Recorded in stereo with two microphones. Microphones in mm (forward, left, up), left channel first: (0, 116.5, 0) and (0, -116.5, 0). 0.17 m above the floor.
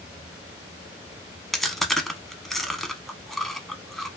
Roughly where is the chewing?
Centre.